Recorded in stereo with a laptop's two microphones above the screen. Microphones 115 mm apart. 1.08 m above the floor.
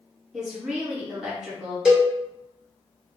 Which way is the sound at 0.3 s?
5° right (ahead or behind).